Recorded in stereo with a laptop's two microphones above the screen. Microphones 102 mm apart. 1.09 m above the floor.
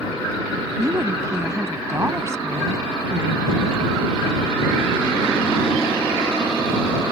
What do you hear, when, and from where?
0.8 s a woman speaking: 30° right (ahead or behind)